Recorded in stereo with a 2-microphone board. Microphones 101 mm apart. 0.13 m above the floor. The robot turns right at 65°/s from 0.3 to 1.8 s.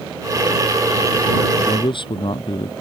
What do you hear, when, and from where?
1.6 s a man speaking: 65° left (ahead or behind); by 2.7 s 55° left (ahead or behind)